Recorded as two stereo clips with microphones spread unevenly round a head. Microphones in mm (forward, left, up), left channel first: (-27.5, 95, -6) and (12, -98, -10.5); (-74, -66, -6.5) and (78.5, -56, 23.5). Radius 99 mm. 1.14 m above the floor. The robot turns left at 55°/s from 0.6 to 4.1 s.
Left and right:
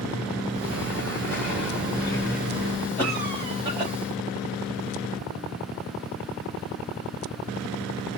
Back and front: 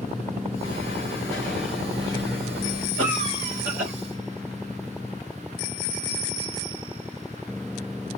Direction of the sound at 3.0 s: 15° left.